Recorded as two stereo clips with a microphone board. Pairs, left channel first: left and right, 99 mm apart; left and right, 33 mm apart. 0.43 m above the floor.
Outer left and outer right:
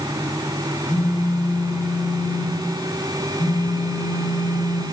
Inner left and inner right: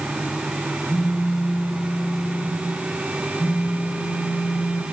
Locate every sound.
0.9 s a phone buzzing: 75° left (ahead or behind), 4.5 m